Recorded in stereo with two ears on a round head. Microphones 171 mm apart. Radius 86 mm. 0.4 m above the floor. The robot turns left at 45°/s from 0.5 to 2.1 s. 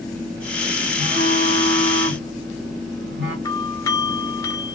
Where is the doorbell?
15° left (ahead or behind), 1.4 m.